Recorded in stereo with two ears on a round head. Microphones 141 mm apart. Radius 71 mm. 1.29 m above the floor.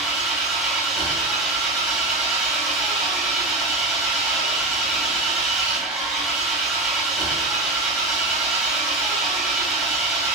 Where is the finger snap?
I don't hear a finger snap.